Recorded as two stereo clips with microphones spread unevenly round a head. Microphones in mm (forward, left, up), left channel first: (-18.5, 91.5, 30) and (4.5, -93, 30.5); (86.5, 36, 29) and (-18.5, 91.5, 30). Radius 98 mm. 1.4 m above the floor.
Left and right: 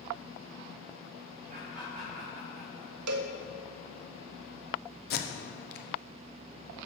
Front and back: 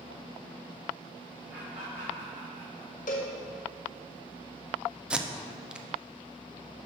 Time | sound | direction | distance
1.5 | laughter | 130° right | 2 m
3.1 | a cowbell | 80° right | 0.7 m
5.1 | tape being pulled | 70° left | 0.8 m